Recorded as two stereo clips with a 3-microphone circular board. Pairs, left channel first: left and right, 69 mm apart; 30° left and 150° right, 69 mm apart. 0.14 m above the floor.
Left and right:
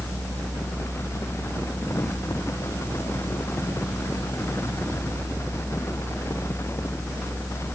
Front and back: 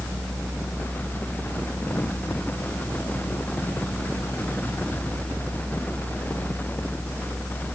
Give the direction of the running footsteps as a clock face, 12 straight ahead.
I don't hear running footsteps.